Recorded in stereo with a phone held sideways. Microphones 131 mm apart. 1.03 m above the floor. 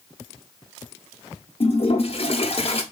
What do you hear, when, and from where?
1.6 s a toilet flushing: 50° left (ahead or behind), 1.0 m